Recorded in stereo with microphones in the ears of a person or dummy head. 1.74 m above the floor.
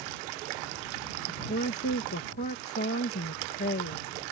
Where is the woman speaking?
45° left (ahead or behind).